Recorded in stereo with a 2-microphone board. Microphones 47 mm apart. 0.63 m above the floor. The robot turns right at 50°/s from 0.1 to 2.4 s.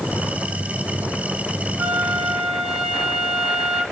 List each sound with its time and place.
1.8 s a flute: 35° right, 1.8 m; by 3.8 s 5° right, 1.8 m